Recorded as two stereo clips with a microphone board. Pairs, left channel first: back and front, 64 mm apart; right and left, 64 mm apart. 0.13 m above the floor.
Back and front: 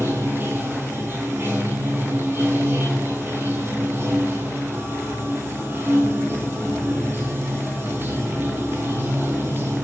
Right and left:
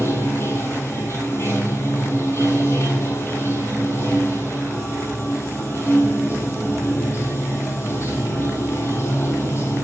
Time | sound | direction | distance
0.0 | running water | 50° right | 1.9 m